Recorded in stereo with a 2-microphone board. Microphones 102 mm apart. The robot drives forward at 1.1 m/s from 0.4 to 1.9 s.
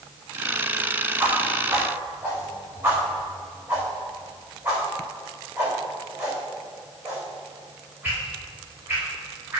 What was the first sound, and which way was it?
A whoosh, 20° right (ahead or behind).